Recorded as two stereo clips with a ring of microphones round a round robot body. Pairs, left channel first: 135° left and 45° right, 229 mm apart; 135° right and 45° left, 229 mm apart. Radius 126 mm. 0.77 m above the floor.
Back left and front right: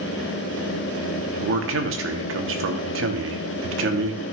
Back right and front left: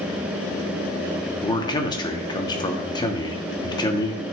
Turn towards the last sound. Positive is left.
turn(degrees=-65)